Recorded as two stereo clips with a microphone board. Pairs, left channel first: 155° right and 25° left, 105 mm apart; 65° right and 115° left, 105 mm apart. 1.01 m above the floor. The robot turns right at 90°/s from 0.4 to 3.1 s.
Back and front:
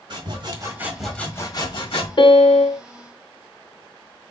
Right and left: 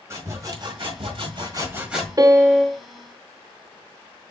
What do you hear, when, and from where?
0.1 s sawing: 55° left, 1.6 m; by 2.1 s 155° right, 1.6 m
2.2 s a piano: 165° left, 0.7 m; by 2.8 s 140° right, 0.7 m